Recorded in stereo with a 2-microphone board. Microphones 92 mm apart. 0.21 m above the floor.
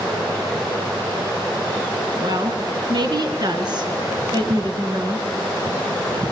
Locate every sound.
2.2 s a woman speaking: 50° right (ahead or behind), 2 m